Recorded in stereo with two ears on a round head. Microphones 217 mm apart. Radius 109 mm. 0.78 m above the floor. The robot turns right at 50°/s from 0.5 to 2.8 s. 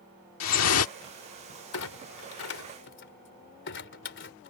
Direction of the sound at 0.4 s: 80° left.